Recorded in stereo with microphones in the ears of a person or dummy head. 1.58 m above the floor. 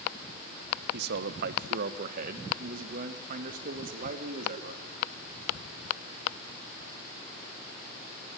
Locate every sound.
0.9 s a man speaking: 65° right (ahead or behind), 1.3 m; by 4.8 s 50° right (ahead or behind), 3.5 m